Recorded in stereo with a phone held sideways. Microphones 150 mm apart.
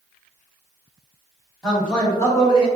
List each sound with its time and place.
1.6 s a man speaking: centre (ahead or behind), 1.6 m; by 2.7 s 35° left (ahead or behind), 1.1 m